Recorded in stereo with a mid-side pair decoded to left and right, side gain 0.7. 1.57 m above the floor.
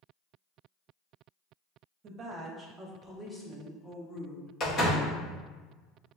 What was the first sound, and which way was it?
A woman speaking, 45° right.